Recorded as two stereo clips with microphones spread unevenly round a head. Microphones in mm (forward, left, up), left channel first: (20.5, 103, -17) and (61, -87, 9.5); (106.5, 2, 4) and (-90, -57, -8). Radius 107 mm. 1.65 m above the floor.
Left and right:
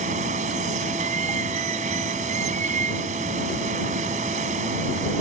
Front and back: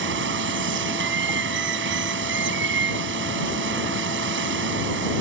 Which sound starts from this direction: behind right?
Running water, at 0.0 s.